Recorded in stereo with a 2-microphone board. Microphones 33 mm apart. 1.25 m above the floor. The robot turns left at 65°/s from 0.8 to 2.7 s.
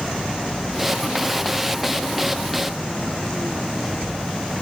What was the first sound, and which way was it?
Only background noise.